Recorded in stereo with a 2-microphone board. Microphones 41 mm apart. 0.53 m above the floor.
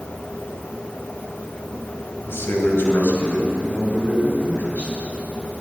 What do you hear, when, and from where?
2.2 s a man speaking: 70° left (ahead or behind), 3 m; by 4.9 s 35° left (ahead or behind), 3.5 m